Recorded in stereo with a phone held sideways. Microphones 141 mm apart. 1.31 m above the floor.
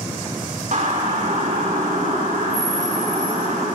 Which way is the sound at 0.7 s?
60° right (ahead or behind).